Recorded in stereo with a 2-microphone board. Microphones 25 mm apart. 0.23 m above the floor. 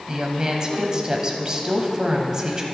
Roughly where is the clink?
I don't hear a clink.